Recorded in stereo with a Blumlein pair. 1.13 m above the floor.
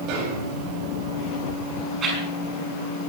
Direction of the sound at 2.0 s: 25° right.